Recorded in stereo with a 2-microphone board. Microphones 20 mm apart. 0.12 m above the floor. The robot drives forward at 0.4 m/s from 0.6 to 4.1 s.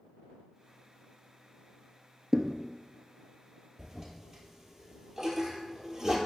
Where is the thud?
35° right (ahead or behind), 0.6 m; by 2.6 s 40° right (ahead or behind), 0.5 m.